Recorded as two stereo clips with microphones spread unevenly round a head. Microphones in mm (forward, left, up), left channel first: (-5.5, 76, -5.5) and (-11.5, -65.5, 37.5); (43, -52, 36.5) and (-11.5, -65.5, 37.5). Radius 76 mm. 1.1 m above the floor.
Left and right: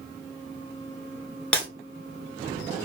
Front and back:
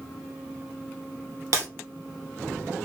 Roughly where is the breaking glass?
Behind.